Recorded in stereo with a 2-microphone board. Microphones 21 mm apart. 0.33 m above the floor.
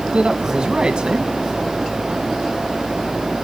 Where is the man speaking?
50° right (ahead or behind), 2.5 m.